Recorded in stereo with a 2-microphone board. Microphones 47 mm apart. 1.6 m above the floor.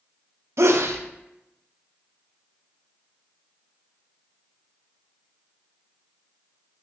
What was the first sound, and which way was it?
A sneeze, 70° right (ahead or behind).